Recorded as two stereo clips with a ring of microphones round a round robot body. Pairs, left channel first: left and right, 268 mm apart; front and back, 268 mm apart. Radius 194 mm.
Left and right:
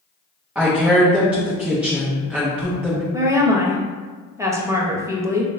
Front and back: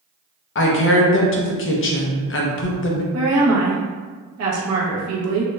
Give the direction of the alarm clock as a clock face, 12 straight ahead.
I don't hear an alarm clock.